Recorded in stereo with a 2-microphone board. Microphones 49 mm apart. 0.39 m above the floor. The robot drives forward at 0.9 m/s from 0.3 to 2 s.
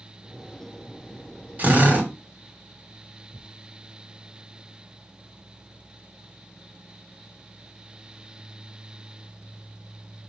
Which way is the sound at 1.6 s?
40° right (ahead or behind).